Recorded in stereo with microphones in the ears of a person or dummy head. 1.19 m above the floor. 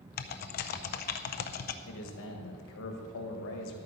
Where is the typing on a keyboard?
45° left (ahead or behind), 0.5 m.